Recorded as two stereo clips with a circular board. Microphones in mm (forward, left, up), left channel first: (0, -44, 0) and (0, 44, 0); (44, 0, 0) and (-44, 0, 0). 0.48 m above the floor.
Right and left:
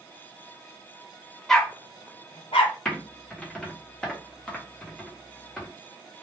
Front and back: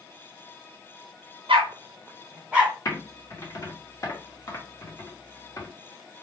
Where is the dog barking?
Straight behind, 0.6 m; by 2.8 s 95° right, 1.1 m.